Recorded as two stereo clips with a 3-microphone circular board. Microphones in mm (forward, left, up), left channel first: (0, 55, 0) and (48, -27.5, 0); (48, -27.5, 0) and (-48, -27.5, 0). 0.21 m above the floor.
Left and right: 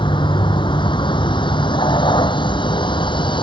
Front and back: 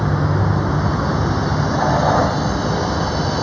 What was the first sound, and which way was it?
A vehicle, 90° left.